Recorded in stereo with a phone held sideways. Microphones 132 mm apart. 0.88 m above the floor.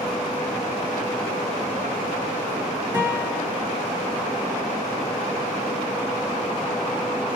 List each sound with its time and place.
2.9 s a guitar: 25° right (ahead or behind), 2 m